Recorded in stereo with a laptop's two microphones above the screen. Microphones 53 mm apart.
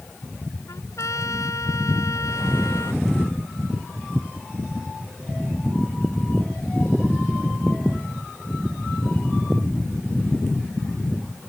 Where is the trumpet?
75° left (ahead or behind).